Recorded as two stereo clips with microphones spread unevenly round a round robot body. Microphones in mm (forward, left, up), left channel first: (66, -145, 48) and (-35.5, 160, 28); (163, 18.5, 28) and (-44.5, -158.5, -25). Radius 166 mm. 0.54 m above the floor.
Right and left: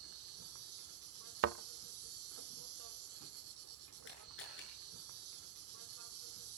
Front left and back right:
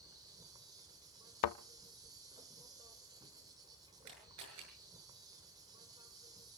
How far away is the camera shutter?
About 7 m.